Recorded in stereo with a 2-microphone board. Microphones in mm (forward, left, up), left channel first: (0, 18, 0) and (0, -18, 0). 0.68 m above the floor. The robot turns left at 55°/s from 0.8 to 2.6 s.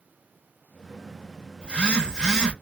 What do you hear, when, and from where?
1.6 s a phone buzzing: 20° left (ahead or behind), 1.0 m; by 2.5 s 15° left (ahead or behind), 1.0 m